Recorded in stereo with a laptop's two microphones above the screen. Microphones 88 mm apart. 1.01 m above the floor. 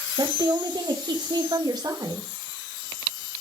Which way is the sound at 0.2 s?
55° right (ahead or behind).